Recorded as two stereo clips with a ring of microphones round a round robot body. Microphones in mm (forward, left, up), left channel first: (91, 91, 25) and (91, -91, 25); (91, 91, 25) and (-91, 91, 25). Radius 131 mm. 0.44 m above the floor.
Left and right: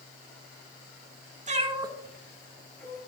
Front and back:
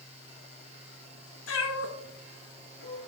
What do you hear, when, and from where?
1.5 s a cat meowing: 40° right, 0.8 m; by 3.0 s 15° left, 1.5 m